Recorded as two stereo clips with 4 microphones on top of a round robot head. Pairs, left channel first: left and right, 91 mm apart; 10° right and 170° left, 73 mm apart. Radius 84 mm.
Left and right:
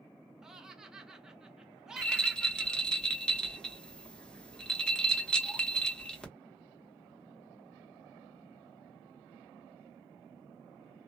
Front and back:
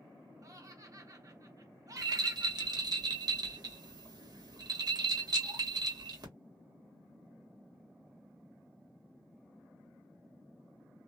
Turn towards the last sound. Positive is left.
turn(degrees=170)